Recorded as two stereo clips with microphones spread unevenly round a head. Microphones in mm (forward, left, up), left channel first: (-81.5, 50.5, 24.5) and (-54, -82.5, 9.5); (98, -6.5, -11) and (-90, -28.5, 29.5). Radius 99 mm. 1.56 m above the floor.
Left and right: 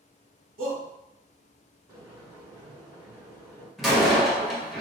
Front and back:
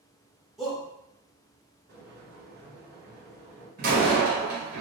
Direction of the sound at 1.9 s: 145° right.